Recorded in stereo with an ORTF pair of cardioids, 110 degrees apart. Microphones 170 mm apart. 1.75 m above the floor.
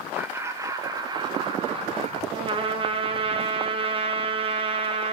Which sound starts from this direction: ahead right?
A trumpet, at 2.3 s.